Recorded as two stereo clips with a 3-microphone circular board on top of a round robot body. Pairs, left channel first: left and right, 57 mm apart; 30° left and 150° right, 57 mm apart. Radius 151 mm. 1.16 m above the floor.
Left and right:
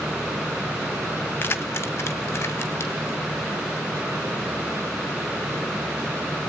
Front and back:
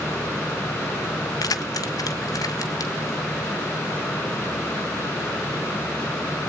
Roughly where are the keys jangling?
Ahead left.